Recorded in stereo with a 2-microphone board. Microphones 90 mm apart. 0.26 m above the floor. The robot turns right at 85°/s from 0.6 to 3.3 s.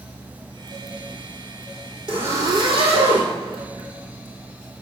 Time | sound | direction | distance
2.1 | a zipper | 10° right (ahead or behind) | 2.5 m